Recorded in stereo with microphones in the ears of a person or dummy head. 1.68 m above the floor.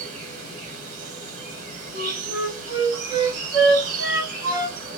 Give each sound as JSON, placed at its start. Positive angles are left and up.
{"t": 0.0, "sound": "an insect", "side_deg": -45, "distance_m": 0.8}
{"t": 1.9, "sound": "a flute", "side_deg": -30, "distance_m": 0.9}